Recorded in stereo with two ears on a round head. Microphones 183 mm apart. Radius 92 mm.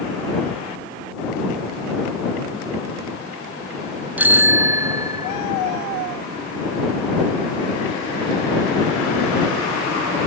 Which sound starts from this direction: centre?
A bicycle bell, at 4.2 s.